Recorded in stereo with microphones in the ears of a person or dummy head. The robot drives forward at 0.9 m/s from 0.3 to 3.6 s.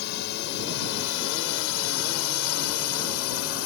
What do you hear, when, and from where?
0.0 s a drone: 65° left (ahead or behind); by 3.7 s 70° left (ahead or behind)